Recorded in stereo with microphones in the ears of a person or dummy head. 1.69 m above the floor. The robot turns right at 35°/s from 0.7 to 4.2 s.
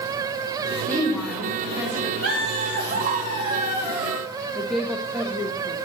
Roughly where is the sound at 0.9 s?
Behind.